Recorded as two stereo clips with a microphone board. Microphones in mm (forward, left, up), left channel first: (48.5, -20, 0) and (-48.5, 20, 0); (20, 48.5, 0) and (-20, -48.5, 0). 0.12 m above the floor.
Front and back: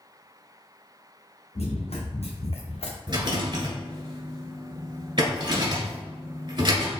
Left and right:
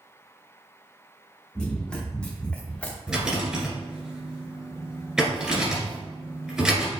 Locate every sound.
1.6 s running footsteps: 15° right, 1.7 m; by 3.0 s 10° right, 0.9 m
3.1 s a rattle: 165° left, 1.8 m